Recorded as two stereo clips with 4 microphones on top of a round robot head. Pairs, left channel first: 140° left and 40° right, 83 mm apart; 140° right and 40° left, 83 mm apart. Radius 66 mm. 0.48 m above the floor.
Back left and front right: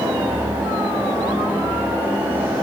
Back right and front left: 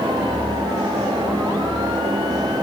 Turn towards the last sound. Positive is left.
No sound to turn to.